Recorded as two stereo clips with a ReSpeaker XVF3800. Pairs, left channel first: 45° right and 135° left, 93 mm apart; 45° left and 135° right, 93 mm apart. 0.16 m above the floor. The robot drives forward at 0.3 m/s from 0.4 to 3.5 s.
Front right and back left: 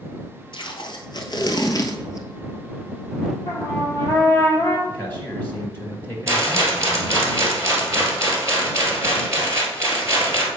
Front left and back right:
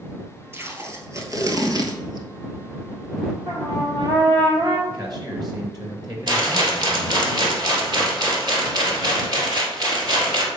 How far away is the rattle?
About 2 m.